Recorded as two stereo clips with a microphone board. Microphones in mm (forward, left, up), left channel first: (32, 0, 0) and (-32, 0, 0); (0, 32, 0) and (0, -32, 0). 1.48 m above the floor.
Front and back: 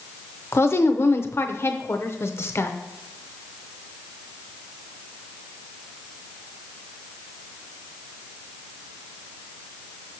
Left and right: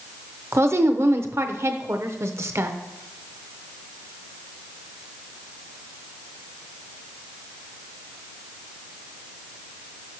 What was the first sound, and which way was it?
A woman speaking, 45° right.